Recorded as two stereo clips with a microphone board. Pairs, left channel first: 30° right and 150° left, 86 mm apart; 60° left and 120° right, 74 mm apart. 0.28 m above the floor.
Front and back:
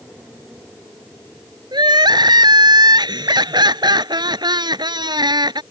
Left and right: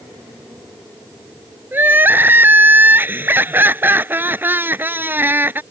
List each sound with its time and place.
1.7 s crying: straight behind